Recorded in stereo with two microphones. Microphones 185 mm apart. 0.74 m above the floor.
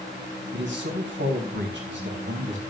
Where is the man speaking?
85° right, 3.5 m.